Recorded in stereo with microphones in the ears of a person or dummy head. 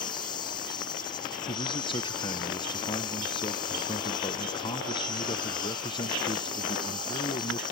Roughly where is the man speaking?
Left.